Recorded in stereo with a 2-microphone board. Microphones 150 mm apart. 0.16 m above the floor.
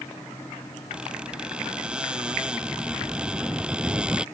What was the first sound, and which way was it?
A squeak, 5° right (ahead or behind).